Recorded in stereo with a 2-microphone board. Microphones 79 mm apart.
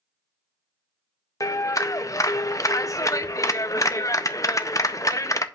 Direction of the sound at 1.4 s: 45° left (ahead or behind).